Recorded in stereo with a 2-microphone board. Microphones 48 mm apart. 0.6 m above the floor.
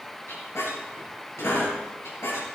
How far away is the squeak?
About 5 m.